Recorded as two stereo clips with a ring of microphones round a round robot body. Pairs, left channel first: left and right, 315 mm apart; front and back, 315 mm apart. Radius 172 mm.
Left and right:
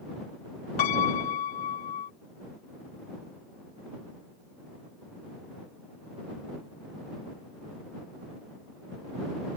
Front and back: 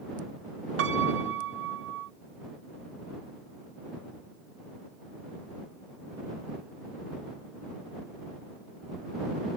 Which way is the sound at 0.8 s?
120° left.